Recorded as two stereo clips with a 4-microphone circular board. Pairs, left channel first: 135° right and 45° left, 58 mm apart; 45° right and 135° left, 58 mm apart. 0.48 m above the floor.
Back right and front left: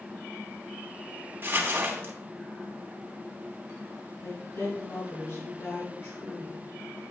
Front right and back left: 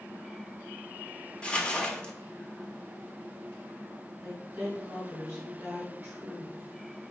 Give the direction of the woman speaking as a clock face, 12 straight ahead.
5 o'clock.